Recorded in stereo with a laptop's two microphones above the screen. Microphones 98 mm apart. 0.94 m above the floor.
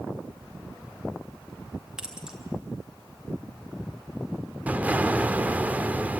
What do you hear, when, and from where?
2.0 s keys jangling: 10° right (ahead or behind), 1.8 m
4.7 s an explosion: 15° right (ahead or behind), 0.8 m